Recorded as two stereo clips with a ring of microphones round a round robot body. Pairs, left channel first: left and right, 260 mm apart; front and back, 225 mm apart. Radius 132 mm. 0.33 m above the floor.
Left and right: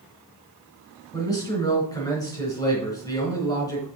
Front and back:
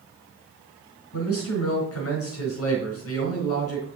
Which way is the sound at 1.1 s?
15° left.